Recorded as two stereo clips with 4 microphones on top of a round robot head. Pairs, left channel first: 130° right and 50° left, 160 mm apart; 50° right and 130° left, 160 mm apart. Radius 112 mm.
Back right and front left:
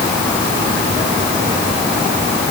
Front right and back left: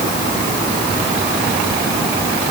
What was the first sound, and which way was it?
Only background noise.